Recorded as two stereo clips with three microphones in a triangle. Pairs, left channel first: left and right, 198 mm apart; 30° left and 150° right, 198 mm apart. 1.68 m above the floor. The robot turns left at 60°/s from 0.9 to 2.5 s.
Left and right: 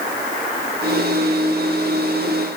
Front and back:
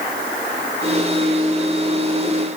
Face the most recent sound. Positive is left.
No sound to turn to.